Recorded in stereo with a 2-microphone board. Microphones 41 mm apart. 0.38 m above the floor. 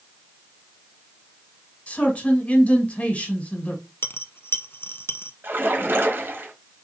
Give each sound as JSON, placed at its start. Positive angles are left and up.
{"t": 1.9, "sound": "a man speaking", "side_deg": 35, "distance_m": 1.9}
{"t": 4.0, "sound": "a dropped coin", "side_deg": 65, "distance_m": 0.5}
{"t": 5.4, "sound": "a splash", "side_deg": -65, "distance_m": 1.3}